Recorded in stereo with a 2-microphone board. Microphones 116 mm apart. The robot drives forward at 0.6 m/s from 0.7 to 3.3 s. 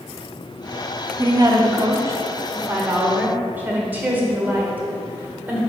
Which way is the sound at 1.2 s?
30° right (ahead or behind).